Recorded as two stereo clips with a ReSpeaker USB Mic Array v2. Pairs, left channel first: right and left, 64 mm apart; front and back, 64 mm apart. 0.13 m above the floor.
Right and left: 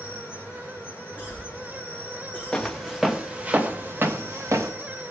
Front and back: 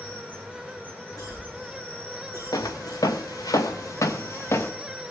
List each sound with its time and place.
0.0 s an insect: 50° right, 2.5 m
1.2 s a cough: 20° left, 6.5 m
2.5 s footsteps: 10° right, 1.1 m; by 4.7 s 50° left, 1.2 m